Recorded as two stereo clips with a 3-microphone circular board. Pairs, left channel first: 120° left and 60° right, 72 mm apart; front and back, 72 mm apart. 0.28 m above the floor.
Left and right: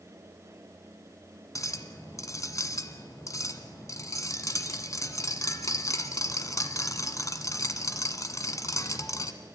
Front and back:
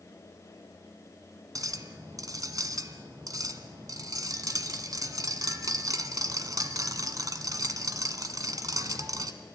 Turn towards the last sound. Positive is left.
turn(degrees=155)